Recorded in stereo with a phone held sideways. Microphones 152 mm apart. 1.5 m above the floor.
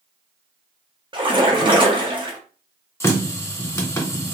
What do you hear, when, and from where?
1.1 s a splash: 35° right (ahead or behind), 0.7 m
3.0 s a running tap: 15° left (ahead or behind), 0.6 m